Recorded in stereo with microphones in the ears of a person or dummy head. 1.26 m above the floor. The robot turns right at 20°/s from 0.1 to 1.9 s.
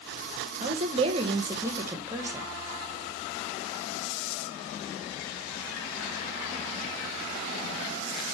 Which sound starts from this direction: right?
A woman speaking, at 0.6 s.